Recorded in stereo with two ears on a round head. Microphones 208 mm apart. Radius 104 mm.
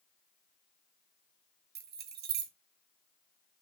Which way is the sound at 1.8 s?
40° right (ahead or behind).